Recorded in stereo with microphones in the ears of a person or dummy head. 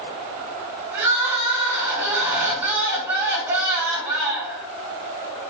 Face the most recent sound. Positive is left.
turn(degrees=-15)  # may be behind; listen again after turning